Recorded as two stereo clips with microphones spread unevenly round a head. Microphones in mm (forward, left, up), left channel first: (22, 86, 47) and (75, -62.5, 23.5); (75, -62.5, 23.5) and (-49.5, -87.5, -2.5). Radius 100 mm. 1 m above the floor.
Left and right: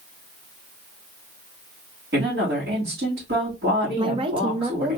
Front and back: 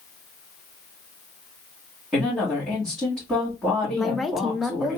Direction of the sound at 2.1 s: 90° right.